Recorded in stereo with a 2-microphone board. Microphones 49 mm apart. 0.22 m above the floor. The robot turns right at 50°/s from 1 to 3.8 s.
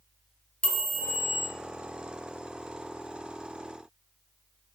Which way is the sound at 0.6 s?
20° left (ahead or behind).